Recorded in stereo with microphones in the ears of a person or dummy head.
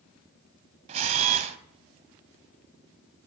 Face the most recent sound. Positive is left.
turn(degrees=-25)  # may be behind; listen again after turning